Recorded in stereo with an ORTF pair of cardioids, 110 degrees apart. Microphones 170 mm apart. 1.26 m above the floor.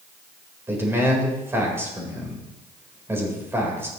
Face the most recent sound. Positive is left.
turn(degrees=-15)